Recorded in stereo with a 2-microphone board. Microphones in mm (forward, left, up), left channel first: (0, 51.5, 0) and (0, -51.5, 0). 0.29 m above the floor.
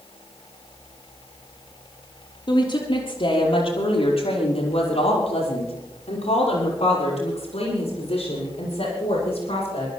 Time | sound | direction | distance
2.5 | a woman speaking | 50° left (ahead or behind) | 6.5 m